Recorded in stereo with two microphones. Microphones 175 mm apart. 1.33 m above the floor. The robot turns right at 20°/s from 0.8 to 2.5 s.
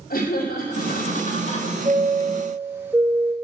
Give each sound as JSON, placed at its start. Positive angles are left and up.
{"t": 0.1, "sound": "laughter", "side_deg": 55, "distance_m": 3.0}
{"t": 1.9, "sound": "a chime", "side_deg": -25, "distance_m": 1.9}